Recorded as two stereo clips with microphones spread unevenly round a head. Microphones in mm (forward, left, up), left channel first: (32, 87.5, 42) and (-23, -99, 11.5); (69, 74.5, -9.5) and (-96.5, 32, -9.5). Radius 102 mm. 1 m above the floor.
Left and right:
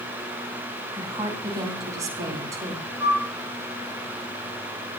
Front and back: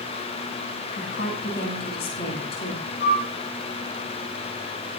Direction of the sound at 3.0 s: 30° right.